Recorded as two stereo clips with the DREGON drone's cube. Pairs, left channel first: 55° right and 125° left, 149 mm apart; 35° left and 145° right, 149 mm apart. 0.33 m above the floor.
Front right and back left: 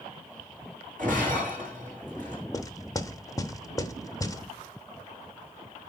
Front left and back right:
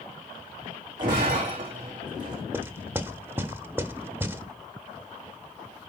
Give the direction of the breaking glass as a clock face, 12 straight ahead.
7 o'clock.